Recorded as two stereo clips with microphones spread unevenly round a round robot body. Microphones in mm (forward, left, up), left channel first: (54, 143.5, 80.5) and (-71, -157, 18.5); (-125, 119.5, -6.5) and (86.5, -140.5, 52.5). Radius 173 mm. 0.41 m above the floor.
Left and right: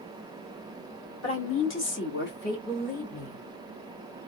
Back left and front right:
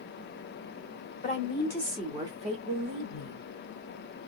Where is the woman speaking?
105° left, 1.5 m; by 3.5 s 10° right, 1.8 m.